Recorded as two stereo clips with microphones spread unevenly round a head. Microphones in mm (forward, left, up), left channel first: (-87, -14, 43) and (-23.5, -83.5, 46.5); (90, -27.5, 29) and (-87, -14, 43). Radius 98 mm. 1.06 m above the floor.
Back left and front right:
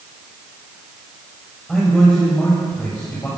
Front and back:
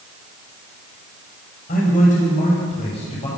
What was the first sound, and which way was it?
A man speaking, 45° left.